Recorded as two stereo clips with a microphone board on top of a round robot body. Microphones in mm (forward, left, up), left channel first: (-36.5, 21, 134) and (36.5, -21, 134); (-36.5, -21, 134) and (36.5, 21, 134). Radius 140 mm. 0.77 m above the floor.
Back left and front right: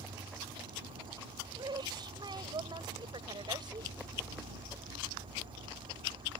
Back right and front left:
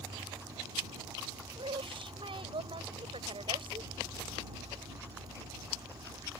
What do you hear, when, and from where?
0.0 s an insect: 15° right
1.6 s a woman speaking: 10° left